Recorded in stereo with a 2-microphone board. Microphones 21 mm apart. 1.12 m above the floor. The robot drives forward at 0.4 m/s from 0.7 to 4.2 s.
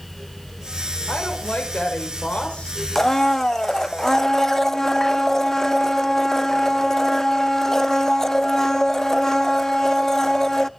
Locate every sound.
1.1 s a woman speaking: 65° left (ahead or behind), 5.5 m; by 2.7 s 70° left (ahead or behind), 5 m
3.0 s a blender: 20° left (ahead or behind), 0.5 m